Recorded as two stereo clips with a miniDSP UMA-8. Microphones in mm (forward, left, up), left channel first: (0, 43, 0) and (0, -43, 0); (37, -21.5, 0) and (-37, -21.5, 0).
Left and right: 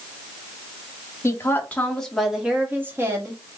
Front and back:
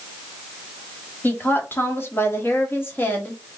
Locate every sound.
1.2 s a woman speaking: 50° left, 1.1 m; by 3.6 s 60° right, 1.3 m